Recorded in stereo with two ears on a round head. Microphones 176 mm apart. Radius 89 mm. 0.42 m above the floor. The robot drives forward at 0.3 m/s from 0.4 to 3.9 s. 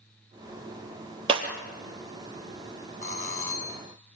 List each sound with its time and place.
1.3 s breaking glass: 30° right (ahead or behind), 3 m
3.0 s a doorbell: 45° left (ahead or behind), 5 m